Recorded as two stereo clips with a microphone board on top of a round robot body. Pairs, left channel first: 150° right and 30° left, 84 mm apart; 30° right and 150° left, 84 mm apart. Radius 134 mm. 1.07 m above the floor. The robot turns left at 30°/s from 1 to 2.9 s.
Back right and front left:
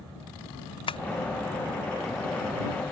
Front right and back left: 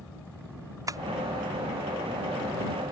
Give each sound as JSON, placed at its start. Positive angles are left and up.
{"t": 0.9, "sound": "tapping", "azimuth_deg": -160}